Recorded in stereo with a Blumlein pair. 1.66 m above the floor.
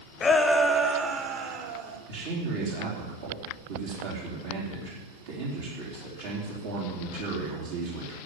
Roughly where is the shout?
Ahead.